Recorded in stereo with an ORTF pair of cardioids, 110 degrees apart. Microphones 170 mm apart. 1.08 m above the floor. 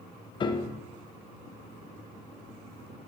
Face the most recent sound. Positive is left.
turn(degrees=30)